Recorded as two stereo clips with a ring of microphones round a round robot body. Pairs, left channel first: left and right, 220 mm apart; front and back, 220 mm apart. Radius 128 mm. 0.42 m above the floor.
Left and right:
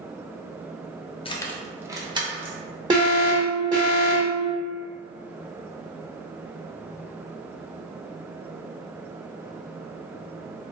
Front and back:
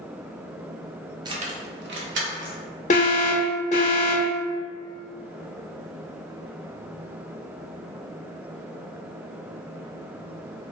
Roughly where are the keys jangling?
Behind left.